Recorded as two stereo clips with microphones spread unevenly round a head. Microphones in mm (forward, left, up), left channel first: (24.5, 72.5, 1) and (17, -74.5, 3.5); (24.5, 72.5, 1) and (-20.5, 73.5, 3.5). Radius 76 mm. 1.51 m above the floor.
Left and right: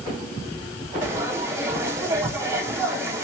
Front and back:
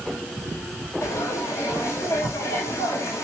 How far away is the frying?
About 4.5 m.